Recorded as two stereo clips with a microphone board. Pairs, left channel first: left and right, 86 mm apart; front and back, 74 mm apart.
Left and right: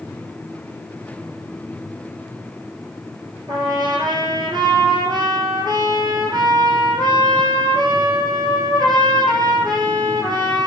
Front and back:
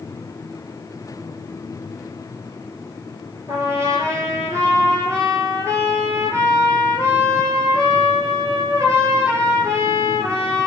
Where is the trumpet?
130° right, 5.5 m.